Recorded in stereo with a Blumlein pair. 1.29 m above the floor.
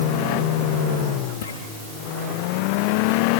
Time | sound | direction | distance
1.4 | footsteps | 60° left | 7.5 m